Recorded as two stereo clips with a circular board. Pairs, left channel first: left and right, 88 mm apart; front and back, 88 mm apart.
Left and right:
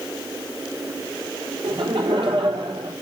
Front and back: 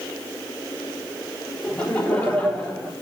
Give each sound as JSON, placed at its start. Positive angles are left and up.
{"t": 1.6, "sound": "laughter", "azimuth_deg": -75, "distance_m": 4.0}